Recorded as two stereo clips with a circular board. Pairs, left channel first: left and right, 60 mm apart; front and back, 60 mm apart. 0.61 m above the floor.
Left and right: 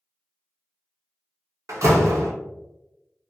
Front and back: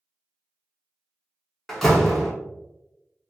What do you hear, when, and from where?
1.7 s a door slam: 85° right, 0.9 m